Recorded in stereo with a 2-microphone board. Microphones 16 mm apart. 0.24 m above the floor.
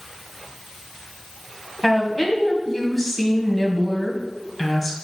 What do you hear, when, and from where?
1.8 s a woman speaking: 10° left (ahead or behind), 1.8 m